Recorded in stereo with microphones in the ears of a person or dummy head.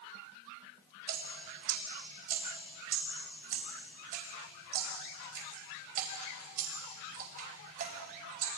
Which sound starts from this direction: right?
Dripping, at 1.1 s.